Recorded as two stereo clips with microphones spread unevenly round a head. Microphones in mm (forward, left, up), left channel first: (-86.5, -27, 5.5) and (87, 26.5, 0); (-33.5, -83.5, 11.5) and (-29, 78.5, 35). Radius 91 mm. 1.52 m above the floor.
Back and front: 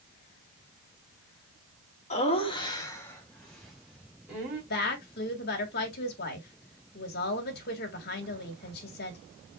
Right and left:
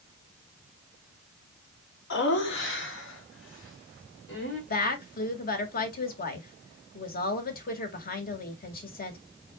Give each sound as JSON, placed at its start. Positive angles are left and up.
{"t": 2.1, "sound": "laughter", "azimuth_deg": -110, "distance_m": 2.0}
{"t": 4.7, "sound": "a woman speaking", "azimuth_deg": -125, "distance_m": 1.9}